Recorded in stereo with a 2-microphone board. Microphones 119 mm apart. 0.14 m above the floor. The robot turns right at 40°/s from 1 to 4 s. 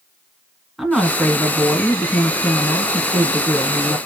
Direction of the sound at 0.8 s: Centre (ahead or behind).